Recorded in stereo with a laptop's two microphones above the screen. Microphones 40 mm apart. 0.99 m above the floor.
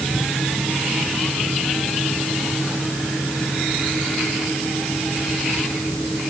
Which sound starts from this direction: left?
A fan, at 0.0 s.